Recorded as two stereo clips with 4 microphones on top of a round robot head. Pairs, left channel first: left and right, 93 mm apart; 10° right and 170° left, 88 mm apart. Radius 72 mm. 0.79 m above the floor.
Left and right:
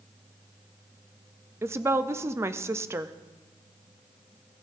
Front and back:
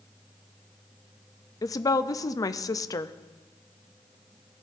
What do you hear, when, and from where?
1.6 s a woman speaking: 40° right, 0.5 m